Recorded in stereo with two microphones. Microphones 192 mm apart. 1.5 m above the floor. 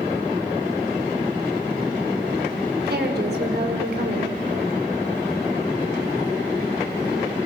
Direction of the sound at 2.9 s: 60° right (ahead or behind).